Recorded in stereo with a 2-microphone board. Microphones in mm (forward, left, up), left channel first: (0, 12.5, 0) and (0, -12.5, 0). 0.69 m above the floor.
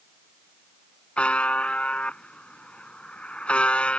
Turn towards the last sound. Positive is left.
turn(degrees=50)  # may be behind; listen again after turning